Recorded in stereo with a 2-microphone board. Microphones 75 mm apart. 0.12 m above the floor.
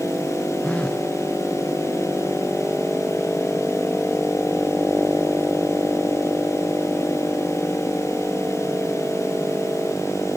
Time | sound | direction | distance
0.6 | a phone buzzing | 15° left (ahead or behind) | ?